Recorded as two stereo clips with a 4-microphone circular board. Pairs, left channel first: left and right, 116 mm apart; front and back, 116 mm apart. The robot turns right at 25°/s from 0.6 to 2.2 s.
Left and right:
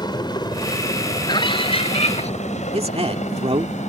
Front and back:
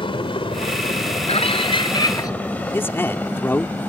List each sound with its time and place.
0.0 s a helicopter: 40° left; by 3.9 s 75° left
1.3 s a scream: 35° left; by 2.3 s 60° left
2.7 s a man speaking: 70° right